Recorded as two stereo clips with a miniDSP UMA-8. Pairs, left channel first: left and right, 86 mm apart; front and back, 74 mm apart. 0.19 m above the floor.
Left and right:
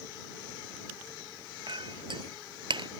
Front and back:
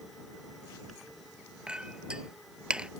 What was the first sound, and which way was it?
A clink, 100° right.